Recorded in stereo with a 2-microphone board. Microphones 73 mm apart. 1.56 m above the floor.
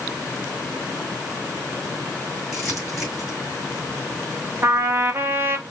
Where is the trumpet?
35° right (ahead or behind), 0.7 m.